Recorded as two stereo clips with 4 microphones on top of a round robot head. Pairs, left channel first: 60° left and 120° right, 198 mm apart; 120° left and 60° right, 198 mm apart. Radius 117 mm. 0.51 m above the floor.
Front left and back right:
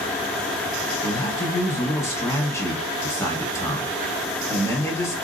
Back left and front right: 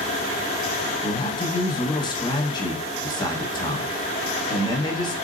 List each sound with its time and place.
1.0 s a man speaking: 105° left, 1.3 m